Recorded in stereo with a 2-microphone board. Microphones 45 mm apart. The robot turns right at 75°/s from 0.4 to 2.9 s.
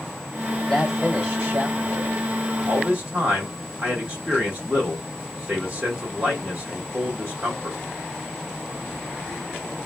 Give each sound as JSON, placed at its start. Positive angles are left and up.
{"t": 0.7, "sound": "a man speaking", "azimuth_deg": 170, "distance_m": 2.0}
{"t": 2.6, "sound": "a man speaking", "side_deg": -35, "distance_m": 2.0}